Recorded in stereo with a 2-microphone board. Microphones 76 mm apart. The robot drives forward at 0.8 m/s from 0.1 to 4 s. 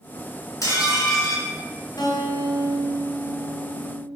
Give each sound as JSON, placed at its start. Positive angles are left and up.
{"t": 0.6, "sound": "dishes clattering", "side_deg": 45, "distance_m": 2.5}
{"t": 2.0, "sound": "a guitar", "side_deg": 60, "distance_m": 2.5}